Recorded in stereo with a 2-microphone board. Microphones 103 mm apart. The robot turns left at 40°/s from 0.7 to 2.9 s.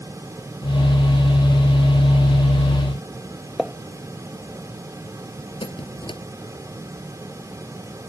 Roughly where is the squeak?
Left.